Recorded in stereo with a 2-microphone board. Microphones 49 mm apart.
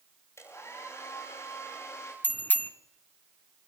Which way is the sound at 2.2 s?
40° left (ahead or behind).